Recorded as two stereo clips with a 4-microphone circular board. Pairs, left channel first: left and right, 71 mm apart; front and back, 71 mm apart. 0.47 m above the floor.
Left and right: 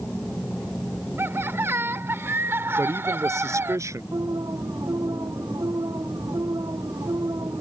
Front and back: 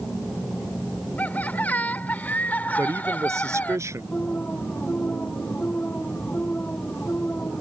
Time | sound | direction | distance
1.2 | laughter | 55° right | ?
2.8 | a man speaking | 135° right | ?
4.1 | an alarm | 65° right | ?